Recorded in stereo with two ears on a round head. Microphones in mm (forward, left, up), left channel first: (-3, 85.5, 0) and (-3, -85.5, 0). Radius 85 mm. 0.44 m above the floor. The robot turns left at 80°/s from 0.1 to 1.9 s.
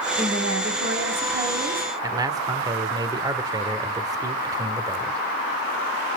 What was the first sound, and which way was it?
A woman speaking, 40° right.